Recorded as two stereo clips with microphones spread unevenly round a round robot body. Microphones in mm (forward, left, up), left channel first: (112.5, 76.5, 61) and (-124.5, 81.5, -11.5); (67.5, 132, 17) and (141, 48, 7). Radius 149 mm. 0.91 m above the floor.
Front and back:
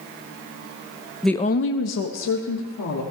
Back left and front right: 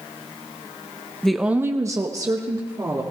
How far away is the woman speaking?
About 0.7 m.